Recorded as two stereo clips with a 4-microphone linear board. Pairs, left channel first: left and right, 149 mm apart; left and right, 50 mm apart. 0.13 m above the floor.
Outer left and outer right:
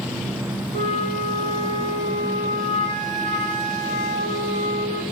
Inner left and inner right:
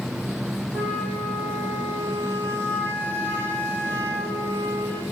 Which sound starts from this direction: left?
A flute, at 0.7 s.